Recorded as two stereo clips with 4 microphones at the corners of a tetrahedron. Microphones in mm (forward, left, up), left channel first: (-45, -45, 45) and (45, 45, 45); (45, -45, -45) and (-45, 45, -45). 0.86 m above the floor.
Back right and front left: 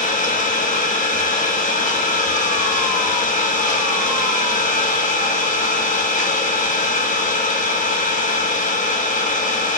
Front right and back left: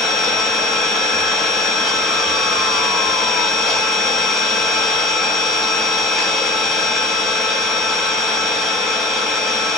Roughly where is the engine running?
Behind right.